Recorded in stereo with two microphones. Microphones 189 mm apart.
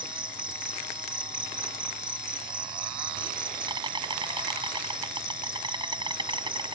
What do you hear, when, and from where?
0.0 s an insect: 25° right (ahead or behind)